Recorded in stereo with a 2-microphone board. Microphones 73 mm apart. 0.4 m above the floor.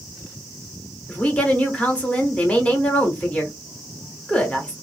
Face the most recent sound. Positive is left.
turn(degrees=20)  # may be behind; listen again after turning